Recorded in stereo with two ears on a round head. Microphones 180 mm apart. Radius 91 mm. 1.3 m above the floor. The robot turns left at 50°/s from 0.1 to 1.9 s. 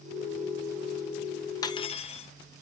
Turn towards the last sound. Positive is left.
turn(degrees=30)  # may be behind; listen again after turning